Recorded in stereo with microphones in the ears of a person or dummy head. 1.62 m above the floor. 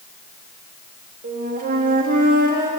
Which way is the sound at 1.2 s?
50° right (ahead or behind).